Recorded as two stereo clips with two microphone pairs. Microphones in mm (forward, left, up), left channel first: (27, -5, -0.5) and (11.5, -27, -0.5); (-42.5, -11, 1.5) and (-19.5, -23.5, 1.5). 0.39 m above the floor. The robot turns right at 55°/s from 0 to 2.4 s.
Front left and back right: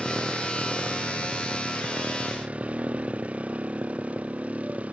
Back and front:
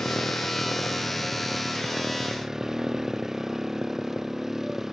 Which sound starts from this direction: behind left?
A motorcycle, at 0.0 s.